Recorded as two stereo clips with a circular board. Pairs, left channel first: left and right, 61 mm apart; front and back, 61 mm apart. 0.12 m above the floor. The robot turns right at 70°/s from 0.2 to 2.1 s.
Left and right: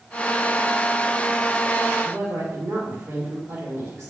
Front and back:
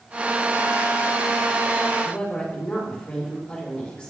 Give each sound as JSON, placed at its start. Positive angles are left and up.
{"t": 2.0, "sound": "a woman speaking", "azimuth_deg": -70, "distance_m": 2.5}